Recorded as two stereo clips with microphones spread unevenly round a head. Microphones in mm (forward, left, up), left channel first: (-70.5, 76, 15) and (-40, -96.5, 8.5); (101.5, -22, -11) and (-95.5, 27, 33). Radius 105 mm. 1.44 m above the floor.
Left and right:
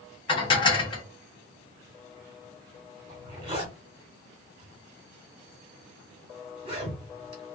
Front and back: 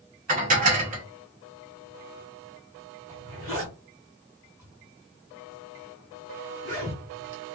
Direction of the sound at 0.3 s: 150° left.